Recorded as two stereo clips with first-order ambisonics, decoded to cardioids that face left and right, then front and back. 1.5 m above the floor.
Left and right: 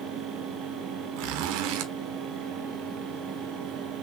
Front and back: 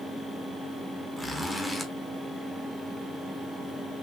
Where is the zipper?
85° right, 0.8 m.